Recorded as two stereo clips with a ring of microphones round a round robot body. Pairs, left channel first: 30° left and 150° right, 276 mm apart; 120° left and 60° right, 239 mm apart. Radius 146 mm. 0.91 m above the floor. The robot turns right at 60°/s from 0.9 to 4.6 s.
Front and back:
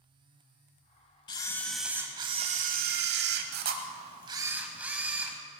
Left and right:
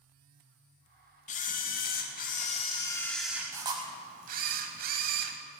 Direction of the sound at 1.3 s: 90° left.